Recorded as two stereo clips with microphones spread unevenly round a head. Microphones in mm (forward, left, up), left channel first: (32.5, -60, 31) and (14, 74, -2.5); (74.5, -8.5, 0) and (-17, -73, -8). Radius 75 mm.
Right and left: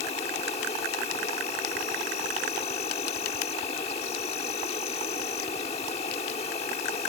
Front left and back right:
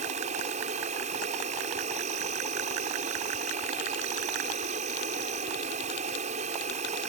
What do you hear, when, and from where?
0.0 s an insect: 140° right